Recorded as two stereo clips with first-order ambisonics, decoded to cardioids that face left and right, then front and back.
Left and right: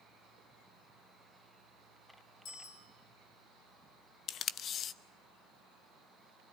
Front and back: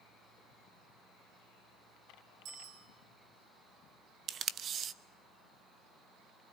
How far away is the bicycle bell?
About 6.5 m.